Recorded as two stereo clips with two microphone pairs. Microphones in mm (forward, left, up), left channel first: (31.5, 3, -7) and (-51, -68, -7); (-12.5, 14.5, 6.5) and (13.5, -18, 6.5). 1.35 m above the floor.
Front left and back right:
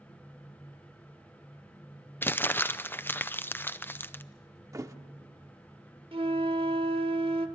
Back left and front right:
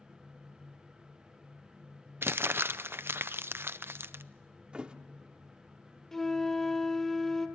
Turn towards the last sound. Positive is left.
turn(degrees=-155)